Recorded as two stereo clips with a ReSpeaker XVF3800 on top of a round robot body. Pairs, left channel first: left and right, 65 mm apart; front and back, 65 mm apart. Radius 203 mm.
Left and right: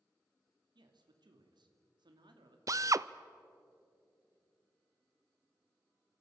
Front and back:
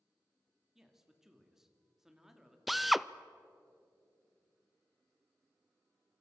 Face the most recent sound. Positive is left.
turn(degrees=-90)